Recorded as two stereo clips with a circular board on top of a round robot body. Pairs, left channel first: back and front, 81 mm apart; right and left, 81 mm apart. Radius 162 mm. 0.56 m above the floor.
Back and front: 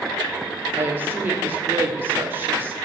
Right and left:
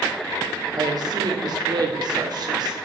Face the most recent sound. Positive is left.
turn(degrees=60)